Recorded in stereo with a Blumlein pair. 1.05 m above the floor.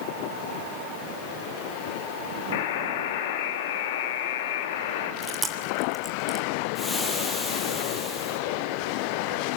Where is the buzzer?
55° left, 2.5 m.